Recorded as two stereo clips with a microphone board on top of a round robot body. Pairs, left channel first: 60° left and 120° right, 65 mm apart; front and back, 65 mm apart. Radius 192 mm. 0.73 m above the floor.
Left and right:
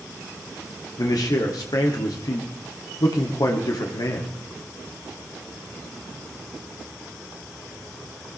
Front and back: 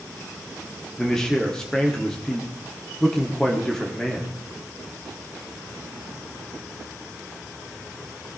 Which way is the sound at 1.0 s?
80° left.